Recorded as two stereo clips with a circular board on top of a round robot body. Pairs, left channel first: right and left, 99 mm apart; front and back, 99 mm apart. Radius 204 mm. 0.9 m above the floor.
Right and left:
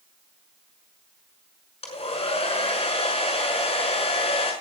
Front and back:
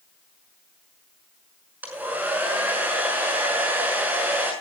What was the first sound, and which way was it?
A hair dryer, 110° right.